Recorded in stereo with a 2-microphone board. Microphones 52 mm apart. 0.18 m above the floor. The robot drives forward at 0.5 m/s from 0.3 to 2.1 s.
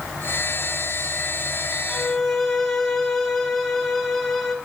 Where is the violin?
10° left (ahead or behind), 0.8 m; by 4.5 s 5° left (ahead or behind), 0.9 m.